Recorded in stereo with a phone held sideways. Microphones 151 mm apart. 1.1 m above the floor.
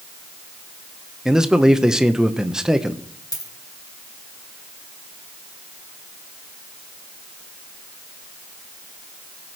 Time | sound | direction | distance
1.2 | a man speaking | 5° right (ahead or behind) | 0.8 m
3.3 | a dropped coin | 25° left (ahead or behind) | 2 m